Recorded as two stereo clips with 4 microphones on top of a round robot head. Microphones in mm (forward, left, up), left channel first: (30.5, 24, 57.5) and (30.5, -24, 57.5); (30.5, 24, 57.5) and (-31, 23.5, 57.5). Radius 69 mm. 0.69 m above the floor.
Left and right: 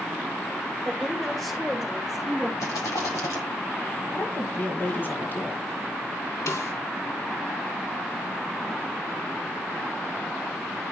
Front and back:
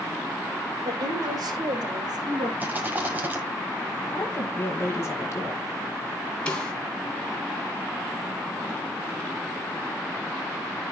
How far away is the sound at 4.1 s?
About 2 m.